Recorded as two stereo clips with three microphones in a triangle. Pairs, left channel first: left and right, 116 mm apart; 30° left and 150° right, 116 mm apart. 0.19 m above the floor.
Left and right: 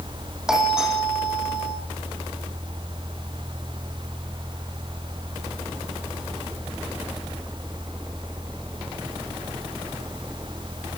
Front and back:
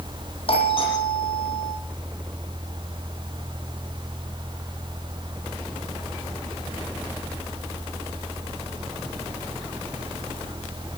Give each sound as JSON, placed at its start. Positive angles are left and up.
{"t": 0.5, "sound": "a doorbell", "azimuth_deg": -5, "distance_m": 9.0}